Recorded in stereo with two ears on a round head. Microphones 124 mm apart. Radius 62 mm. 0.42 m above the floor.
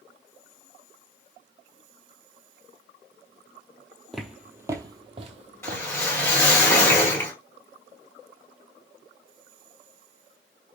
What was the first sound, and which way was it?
Footsteps, 5° left (ahead or behind).